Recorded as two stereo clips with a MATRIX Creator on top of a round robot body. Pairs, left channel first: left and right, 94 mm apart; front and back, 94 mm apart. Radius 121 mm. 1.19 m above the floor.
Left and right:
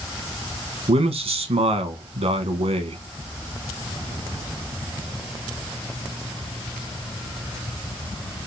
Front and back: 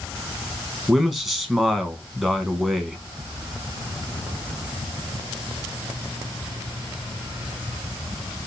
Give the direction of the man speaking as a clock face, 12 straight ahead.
3 o'clock.